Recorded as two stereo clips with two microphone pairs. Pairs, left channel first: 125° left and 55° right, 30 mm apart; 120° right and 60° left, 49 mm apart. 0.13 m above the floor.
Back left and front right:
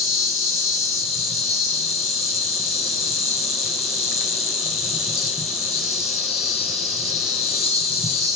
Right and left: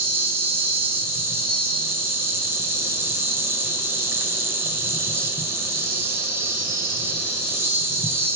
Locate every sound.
0.0 s an insect: 25° left, 0.9 m